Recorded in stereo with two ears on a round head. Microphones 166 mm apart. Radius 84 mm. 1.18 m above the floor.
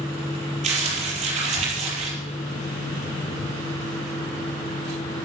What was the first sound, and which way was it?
Crumpling, 40° right (ahead or behind).